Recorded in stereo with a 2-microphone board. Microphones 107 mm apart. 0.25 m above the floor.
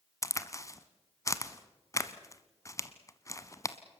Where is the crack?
30° left (ahead or behind), 1.0 m.